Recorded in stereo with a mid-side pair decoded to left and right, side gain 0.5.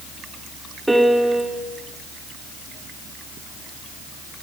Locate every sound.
0.9 s a piano: 10° right, 1.3 m